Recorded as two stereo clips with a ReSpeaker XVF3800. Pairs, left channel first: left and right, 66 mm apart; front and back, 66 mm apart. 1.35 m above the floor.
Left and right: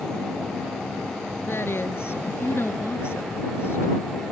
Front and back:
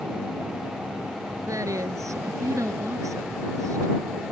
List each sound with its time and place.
1.5 s a woman speaking: 145° left